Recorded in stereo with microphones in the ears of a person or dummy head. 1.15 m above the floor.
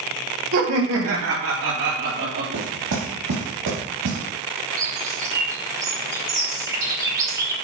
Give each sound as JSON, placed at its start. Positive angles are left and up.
{"t": 0.5, "sound": "laughter", "side_deg": -75, "distance_m": 3.0}
{"t": 2.5, "sound": "knocking", "side_deg": -65, "distance_m": 4.0}
{"t": 4.8, "sound": "a bird", "side_deg": -20, "distance_m": 2.0}